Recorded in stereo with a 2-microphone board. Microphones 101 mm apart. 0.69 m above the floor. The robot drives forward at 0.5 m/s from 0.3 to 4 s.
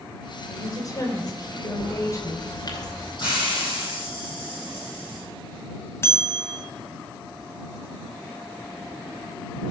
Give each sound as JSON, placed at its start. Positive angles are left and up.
{"t": 0.5, "sound": "a woman speaking", "side_deg": 40, "distance_m": 3.0}
{"t": 1.8, "sound": "a bird", "side_deg": 50, "distance_m": 2.5}
{"t": 3.2, "sound": "a hiss", "side_deg": 50, "distance_m": 6.5}
{"t": 6.0, "sound": "a bell", "side_deg": 25, "distance_m": 1.9}